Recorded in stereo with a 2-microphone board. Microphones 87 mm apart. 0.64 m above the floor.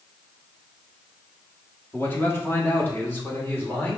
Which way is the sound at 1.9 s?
25° left (ahead or behind).